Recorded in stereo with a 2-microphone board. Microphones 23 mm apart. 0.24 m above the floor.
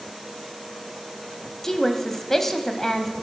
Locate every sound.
1.6 s a woman speaking: 20° left (ahead or behind), 1.2 m